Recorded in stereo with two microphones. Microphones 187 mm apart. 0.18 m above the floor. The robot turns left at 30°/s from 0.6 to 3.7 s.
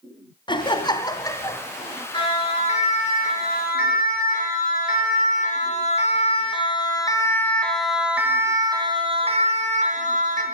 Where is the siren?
25° left (ahead or behind), 5 m; by 10.4 s 50° right (ahead or behind), 2.5 m.